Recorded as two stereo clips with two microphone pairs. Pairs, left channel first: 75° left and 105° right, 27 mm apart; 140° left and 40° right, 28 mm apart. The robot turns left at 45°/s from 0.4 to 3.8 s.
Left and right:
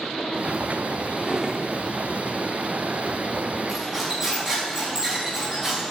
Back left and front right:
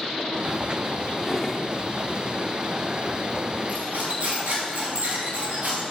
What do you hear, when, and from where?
1.2 s a drawer: 135° right, 1.0 m; by 1.7 s 160° right, 1.0 m
3.7 s cutlery clinking: 25° right, 6 m; by 5.8 s 30° right, 6 m